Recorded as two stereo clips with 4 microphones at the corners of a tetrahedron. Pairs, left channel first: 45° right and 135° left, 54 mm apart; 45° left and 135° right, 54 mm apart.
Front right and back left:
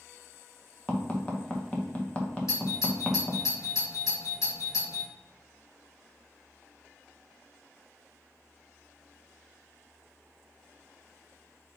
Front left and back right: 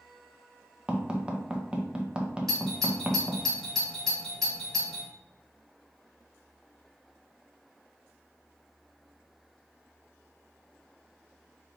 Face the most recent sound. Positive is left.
turn(degrees=-40)